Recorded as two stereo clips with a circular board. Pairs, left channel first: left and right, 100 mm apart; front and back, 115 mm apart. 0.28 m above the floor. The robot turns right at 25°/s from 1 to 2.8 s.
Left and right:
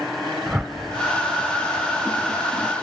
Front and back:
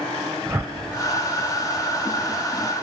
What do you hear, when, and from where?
0.5 s a whoosh: 150° right, 1.0 m